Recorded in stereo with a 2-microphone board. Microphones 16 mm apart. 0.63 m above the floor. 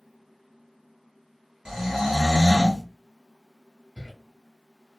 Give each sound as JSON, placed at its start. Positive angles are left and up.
{"t": 1.6, "sound": "snoring", "side_deg": -70, "distance_m": 1.6}
{"t": 4.0, "sound": "a cupboard door", "side_deg": 75, "distance_m": 0.7}